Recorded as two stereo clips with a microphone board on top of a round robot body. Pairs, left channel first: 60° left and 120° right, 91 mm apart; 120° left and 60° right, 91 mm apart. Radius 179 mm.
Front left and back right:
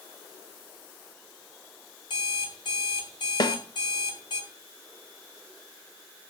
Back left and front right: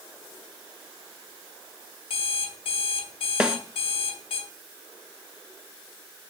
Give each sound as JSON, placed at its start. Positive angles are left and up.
{"t": 2.1, "sound": "an alarm clock", "azimuth_deg": 100, "distance_m": 2.0}
{"t": 3.4, "sound": "a snare drum", "azimuth_deg": 20, "distance_m": 1.6}